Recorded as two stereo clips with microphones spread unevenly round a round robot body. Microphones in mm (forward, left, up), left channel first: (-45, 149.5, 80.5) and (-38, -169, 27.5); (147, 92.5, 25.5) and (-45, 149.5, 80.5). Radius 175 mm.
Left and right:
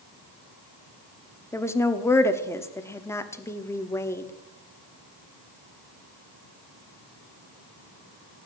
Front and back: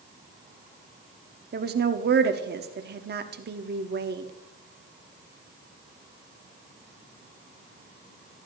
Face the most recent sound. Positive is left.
turn(degrees=180)